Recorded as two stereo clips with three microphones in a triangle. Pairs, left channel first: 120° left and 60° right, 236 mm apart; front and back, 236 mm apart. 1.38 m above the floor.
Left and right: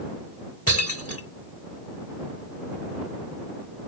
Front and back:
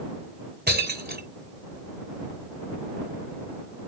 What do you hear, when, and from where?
0.7 s breaking glass: 135° left